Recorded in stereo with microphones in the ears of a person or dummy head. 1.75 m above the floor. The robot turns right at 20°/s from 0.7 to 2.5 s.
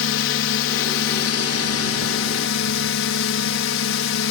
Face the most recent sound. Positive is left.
turn(degrees=100)